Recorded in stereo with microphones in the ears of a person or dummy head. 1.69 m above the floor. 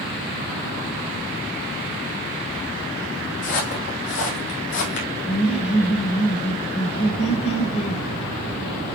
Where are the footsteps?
60° left (ahead or behind), 3.5 m; by 5.1 s 55° left (ahead or behind), 3 m.